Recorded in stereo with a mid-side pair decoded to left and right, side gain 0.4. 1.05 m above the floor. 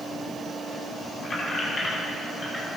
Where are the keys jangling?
45° left, 4.5 m; by 2.7 s 35° left, 5 m.